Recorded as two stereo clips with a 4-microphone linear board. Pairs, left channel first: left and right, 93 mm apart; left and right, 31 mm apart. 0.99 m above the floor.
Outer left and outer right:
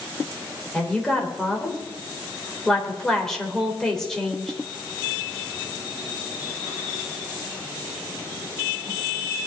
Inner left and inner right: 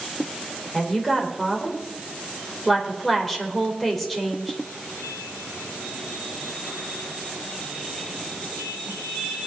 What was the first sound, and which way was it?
A woman speaking, 5° left (ahead or behind).